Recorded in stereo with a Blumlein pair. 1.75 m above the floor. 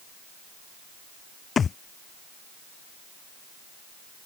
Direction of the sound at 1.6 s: 20° left.